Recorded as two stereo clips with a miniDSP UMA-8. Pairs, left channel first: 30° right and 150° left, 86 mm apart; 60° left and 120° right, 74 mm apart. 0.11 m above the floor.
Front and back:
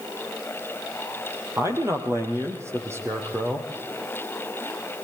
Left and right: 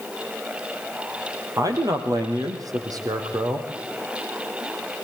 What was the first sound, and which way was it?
A man speaking, 155° right.